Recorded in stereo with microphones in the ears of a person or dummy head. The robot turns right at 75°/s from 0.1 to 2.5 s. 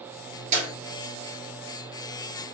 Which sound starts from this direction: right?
A clap, at 0.5 s.